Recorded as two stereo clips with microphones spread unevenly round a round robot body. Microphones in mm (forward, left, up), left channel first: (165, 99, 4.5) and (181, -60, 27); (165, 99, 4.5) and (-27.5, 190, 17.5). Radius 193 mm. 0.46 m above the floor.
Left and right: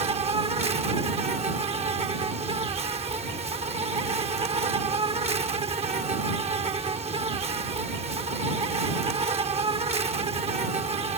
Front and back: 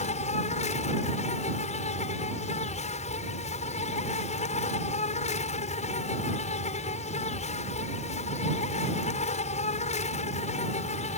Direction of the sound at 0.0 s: 50° right.